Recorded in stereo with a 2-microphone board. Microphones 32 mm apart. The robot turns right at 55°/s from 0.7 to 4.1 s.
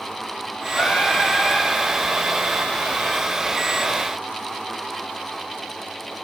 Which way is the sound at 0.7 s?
120° left.